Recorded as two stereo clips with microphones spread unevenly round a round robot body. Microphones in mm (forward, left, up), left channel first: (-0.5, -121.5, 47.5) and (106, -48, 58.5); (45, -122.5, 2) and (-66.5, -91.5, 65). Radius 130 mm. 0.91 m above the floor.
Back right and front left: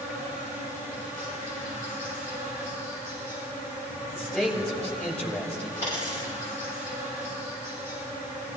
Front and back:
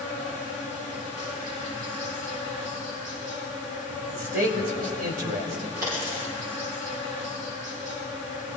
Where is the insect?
150° left, 6 m.